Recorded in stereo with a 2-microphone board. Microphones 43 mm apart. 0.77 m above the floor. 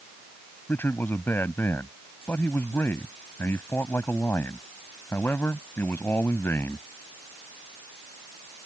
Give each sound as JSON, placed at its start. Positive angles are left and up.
{"t": 0.7, "sound": "a man speaking", "side_deg": 60}